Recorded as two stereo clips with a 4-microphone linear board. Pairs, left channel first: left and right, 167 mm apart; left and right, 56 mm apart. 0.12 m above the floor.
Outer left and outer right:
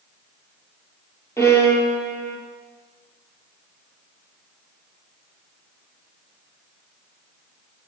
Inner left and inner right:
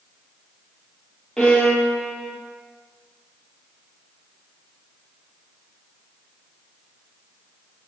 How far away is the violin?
About 1.0 m.